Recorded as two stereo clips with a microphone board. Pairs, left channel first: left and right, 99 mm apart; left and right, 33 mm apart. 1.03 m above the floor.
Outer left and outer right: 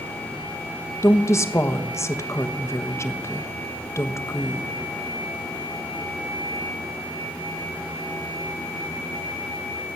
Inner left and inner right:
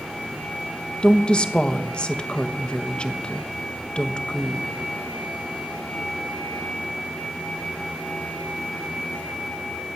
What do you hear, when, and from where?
1.0 s a woman speaking: 30° left (ahead or behind), 1.2 m